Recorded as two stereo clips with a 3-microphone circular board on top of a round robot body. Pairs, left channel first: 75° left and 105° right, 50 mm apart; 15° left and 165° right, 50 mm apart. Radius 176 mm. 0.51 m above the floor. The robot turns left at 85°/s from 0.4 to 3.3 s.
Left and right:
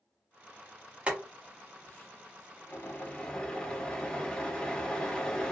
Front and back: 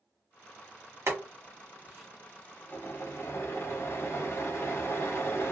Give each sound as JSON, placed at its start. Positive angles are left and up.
{"t": 1.1, "sound": "boiling", "azimuth_deg": -165, "distance_m": 1.7}